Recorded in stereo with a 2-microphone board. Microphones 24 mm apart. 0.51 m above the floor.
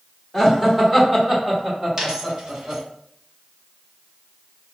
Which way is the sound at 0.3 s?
10° right (ahead or behind).